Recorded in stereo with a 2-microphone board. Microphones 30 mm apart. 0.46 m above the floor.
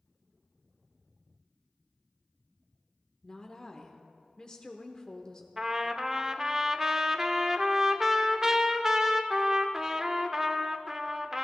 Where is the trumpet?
15° right (ahead or behind), 0.6 m.